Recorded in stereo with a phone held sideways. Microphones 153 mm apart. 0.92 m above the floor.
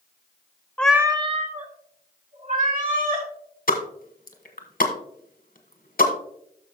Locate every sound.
0.8 s a cat meowing: 10° left (ahead or behind), 0.7 m; by 3.3 s 65° right (ahead or behind), 3.5 m
3.7 s a pop: 70° left (ahead or behind), 1.3 m